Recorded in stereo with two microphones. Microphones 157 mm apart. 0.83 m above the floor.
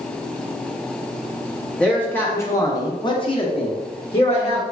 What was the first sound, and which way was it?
A man speaking, 5° left (ahead or behind).